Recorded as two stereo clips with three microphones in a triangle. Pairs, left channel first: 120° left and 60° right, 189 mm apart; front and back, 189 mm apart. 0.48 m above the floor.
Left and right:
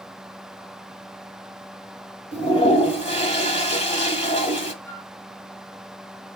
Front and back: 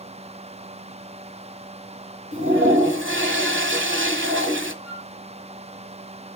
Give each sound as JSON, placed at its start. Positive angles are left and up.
{"t": 2.3, "sound": "a toilet flushing", "azimuth_deg": 175, "distance_m": 1.2}
{"t": 4.8, "sound": "a flute", "azimuth_deg": 75, "distance_m": 5.5}